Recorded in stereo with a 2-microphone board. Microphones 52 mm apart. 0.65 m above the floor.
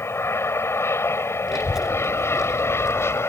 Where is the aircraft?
55° left (ahead or behind).